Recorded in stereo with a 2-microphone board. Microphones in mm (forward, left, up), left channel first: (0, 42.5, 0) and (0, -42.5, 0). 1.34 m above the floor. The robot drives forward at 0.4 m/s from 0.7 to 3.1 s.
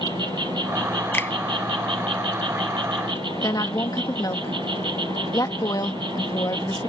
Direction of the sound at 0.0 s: 60° right (ahead or behind).